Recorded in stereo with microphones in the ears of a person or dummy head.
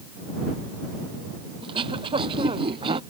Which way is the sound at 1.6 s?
30° right (ahead or behind).